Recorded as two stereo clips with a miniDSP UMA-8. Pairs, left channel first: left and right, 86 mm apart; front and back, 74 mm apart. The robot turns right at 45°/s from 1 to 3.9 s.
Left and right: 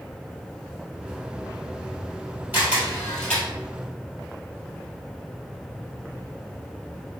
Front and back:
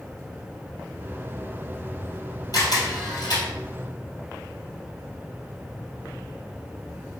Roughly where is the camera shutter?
Ahead right.